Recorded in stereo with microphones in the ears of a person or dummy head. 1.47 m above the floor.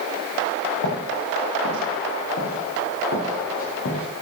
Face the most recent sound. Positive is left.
turn(degrees=50)  # may be behind; listen again after turning